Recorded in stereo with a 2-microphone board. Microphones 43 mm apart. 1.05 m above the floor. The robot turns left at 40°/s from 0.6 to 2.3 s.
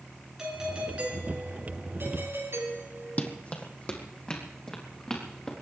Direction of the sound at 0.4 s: 15° right.